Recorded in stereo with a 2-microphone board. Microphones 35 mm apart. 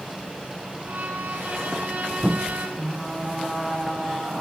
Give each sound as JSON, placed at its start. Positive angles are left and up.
{"t": 0.8, "sound": "a violin", "side_deg": -75, "distance_m": 3.5}
{"t": 2.8, "sound": "frying", "side_deg": -15, "distance_m": 8.5}